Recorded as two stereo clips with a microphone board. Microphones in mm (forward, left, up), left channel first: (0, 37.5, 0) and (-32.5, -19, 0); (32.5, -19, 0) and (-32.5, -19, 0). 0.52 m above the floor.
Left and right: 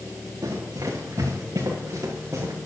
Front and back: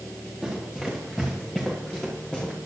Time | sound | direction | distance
0.4 | running footsteps | 95° right | 5.5 m